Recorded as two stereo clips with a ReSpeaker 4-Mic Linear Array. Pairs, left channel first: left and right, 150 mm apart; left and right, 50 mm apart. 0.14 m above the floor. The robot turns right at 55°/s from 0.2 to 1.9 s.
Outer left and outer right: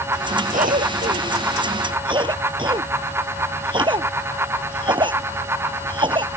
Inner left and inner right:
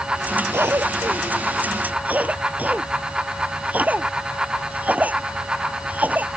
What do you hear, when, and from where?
0.5 s a cough: 60° right (ahead or behind); by 6.3 s 30° right (ahead or behind)